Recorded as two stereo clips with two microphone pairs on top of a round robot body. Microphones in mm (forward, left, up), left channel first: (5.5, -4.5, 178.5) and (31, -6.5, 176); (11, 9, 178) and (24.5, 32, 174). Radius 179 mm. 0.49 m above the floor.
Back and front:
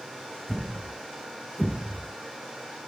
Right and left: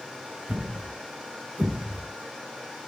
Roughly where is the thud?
Left.